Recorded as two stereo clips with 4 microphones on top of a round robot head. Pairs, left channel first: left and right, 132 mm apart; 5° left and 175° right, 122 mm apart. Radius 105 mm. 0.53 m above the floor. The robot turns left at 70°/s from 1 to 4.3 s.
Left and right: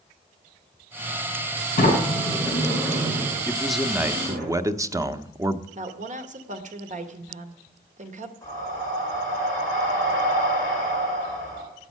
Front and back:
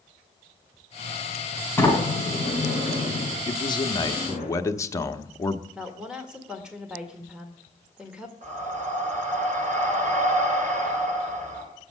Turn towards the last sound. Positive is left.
turn(degrees=165)